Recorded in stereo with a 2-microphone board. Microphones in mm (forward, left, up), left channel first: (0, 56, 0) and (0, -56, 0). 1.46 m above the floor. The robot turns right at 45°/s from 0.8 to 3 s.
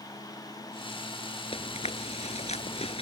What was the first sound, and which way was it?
Chewing, 55° left (ahead or behind).